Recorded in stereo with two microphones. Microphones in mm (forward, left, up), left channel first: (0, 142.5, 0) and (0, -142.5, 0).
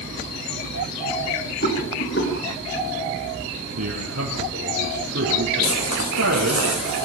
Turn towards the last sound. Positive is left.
turn(degrees=60)  # may be behind; listen again after turning